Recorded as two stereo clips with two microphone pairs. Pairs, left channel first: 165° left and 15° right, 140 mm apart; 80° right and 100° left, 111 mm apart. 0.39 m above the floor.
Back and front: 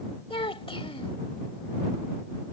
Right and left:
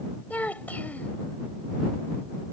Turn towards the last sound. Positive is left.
turn(degrees=-155)